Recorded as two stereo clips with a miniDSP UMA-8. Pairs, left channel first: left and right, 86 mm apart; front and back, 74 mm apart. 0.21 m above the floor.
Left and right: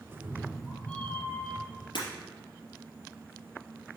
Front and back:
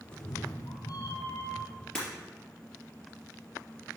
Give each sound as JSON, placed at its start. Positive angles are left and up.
{"t": 0.1, "sound": "a cat meowing", "azimuth_deg": -35, "distance_m": 1.4}
{"t": 1.9, "sound": "breaking glass", "azimuth_deg": 80, "distance_m": 3.0}